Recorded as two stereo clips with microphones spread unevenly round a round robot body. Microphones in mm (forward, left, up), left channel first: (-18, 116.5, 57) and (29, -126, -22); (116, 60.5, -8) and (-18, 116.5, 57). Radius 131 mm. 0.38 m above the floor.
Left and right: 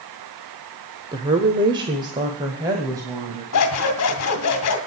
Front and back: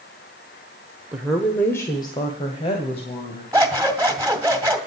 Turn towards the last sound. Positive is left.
turn(degrees=75)